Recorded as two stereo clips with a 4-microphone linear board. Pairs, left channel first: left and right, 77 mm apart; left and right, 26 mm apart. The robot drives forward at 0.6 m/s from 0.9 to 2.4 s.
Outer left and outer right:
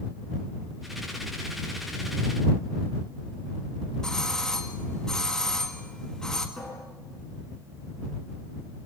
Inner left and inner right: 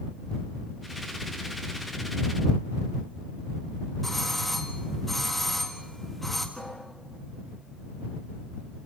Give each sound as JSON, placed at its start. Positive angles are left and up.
{"t": 4.0, "sound": "a doorbell", "side_deg": 5, "distance_m": 1.6}
{"t": 6.6, "sound": "a cupboard door", "side_deg": 0, "distance_m": 6.0}